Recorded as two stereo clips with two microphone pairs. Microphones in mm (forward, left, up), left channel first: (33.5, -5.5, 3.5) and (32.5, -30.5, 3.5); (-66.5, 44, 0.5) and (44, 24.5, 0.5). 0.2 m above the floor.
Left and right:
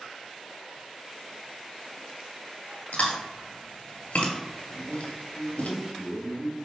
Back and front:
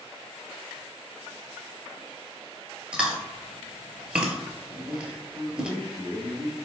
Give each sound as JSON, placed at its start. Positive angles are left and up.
{"t": 2.9, "sound": "chewing", "azimuth_deg": 70, "distance_m": 0.8}
{"t": 4.7, "sound": "a man speaking", "azimuth_deg": -85, "distance_m": 1.3}